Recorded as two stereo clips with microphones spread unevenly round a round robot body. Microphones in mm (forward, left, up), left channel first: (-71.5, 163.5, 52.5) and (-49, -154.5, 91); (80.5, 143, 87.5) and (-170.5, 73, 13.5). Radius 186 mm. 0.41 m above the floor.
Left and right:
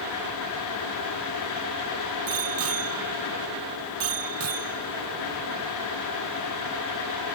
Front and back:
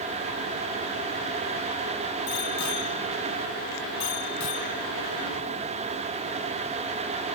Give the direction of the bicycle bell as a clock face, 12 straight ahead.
1 o'clock.